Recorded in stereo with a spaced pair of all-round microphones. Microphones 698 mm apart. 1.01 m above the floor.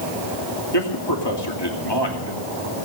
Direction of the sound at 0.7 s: 35° left (ahead or behind).